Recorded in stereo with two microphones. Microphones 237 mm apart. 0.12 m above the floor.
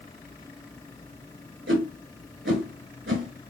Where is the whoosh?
55° right (ahead or behind), 0.7 m.